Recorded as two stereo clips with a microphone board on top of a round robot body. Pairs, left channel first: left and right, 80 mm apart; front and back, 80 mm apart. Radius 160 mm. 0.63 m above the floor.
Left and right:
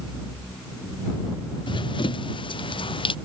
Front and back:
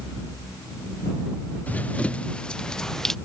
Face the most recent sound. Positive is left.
turn(degrees=85)